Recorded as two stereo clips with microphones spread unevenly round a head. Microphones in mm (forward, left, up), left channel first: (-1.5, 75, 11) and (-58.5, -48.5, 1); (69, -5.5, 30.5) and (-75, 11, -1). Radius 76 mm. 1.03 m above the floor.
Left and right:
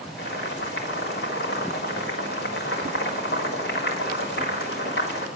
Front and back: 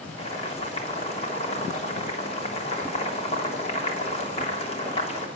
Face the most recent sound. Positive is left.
turn(degrees=45)